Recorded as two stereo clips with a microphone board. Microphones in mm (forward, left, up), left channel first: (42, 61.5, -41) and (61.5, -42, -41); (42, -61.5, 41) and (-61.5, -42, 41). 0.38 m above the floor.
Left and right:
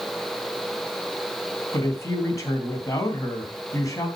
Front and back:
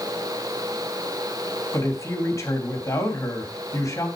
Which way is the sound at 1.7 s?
45° left.